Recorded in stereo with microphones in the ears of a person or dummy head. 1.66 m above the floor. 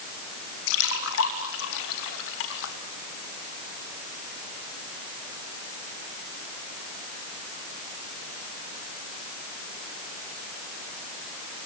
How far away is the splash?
About 3 m.